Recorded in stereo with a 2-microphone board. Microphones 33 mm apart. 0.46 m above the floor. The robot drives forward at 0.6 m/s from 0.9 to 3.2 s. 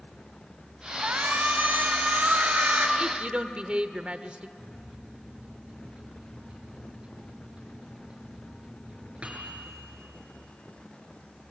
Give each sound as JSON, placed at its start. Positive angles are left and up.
{"t": 1.0, "sound": "a shout", "side_deg": -65, "distance_m": 3.0}
{"t": 3.0, "sound": "a woman speaking", "side_deg": -30, "distance_m": 1.2}
{"t": 4.6, "sound": "a microwave", "side_deg": -30, "distance_m": 5.0}